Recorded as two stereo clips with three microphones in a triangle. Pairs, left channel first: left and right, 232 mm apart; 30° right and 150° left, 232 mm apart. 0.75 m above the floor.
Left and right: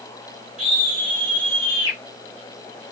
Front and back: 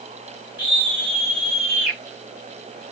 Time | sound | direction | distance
0.6 | a scream | 5° right | 3 m